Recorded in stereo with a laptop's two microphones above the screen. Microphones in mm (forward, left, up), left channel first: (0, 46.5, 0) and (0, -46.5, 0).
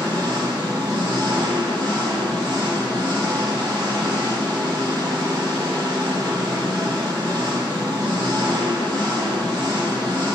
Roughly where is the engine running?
Right.